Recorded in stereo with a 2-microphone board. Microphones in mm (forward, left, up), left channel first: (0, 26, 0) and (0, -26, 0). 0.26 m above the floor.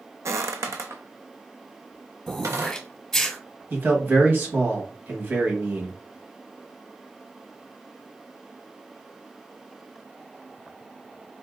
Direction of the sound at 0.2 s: 65° right (ahead or behind).